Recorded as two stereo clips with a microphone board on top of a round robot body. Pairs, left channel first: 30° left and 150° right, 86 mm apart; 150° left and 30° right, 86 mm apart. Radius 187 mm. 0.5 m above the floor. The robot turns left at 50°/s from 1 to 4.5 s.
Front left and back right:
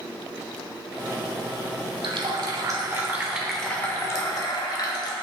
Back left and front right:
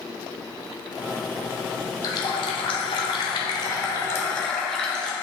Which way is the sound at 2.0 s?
170° right.